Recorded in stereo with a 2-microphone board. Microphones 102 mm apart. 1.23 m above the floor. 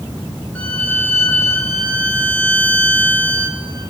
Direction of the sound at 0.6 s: 15° left (ahead or behind).